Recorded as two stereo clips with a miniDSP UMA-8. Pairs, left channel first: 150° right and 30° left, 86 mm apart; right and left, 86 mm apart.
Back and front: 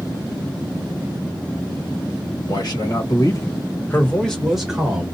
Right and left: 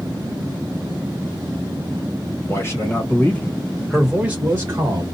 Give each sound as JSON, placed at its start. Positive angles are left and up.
{"t": 2.5, "sound": "a man speaking", "azimuth_deg": -140, "distance_m": 1.8}